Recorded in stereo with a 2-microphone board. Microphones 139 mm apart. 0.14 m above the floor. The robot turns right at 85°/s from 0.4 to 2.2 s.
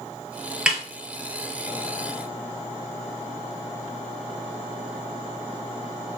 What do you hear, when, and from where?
0.7 s a snare drum: 5° right (ahead or behind), 0.7 m; by 0.8 s 5° left (ahead or behind), 0.7 m